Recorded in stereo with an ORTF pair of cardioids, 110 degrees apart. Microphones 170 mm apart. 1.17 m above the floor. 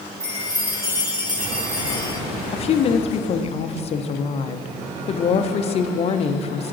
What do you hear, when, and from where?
0.2 s a chime: 20° right, 2.5 m
2.5 s a woman speaking: 40° left, 0.6 m